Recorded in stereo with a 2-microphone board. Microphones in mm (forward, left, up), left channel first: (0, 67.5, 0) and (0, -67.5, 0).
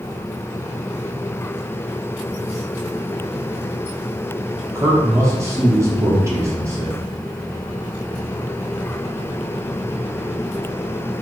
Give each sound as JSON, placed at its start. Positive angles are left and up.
{"t": 4.8, "sound": "a man speaking", "side_deg": -20, "distance_m": 0.6}